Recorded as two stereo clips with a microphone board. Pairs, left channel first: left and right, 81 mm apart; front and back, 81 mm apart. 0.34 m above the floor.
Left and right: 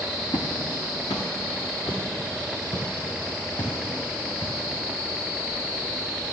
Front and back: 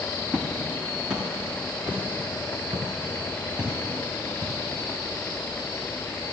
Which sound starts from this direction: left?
Footsteps, at 0.3 s.